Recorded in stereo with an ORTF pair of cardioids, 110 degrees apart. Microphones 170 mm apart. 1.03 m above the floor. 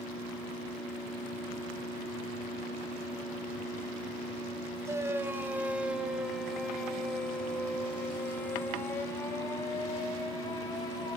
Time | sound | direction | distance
4.8 | a shout | 15° right | 4 m